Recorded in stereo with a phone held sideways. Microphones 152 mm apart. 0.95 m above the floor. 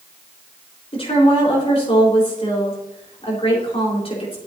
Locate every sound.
0.9 s a woman speaking: 45° left (ahead or behind), 4 m